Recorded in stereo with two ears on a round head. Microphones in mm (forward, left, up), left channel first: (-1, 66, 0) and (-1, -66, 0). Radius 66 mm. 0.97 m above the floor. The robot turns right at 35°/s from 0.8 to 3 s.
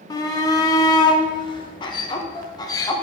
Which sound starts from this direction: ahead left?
A shout, at 0.1 s.